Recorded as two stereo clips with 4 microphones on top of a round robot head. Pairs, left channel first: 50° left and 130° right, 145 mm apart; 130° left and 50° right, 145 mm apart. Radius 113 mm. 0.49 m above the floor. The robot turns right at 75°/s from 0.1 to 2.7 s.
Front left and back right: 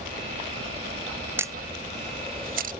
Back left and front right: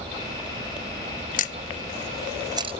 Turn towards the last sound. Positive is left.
turn(degrees=-105)